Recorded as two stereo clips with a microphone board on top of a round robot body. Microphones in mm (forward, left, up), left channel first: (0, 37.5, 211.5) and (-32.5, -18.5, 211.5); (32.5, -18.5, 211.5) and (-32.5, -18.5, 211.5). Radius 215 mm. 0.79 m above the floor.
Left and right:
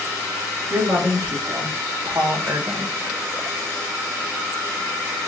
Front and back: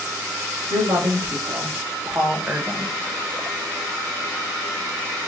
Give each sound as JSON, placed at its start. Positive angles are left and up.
{"t": 0.7, "sound": "a woman speaking", "azimuth_deg": -175, "distance_m": 2.5}